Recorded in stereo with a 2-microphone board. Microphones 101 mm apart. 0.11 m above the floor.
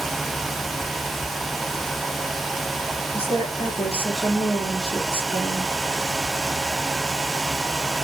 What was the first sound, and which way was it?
A woman speaking, 70° left (ahead or behind).